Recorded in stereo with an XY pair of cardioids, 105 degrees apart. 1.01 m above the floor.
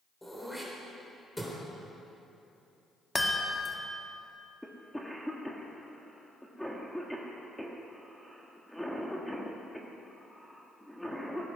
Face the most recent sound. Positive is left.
turn(degrees=5)